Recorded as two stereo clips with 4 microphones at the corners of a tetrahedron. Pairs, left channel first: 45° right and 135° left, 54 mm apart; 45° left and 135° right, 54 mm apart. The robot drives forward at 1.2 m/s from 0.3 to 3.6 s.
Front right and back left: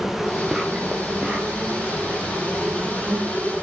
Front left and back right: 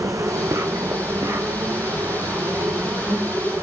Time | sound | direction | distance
0.0 | an insect | 140° right | 2.5 m